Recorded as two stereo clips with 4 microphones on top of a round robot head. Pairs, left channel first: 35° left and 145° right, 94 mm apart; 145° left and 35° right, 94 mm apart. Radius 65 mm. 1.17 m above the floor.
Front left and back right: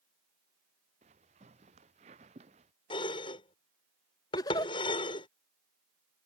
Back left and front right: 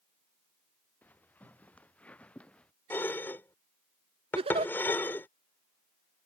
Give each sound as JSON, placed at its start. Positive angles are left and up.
{"t": 1.0, "sound": "footsteps", "azimuth_deg": -140}
{"t": 2.9, "sound": "dishes clattering", "azimuth_deg": 75}
{"t": 4.3, "sound": "a giggle", "azimuth_deg": -15}